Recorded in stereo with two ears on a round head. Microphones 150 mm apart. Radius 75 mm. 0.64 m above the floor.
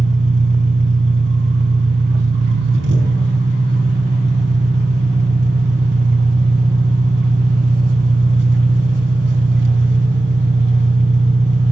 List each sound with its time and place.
0.0 s an engine running: 80° right, 5 m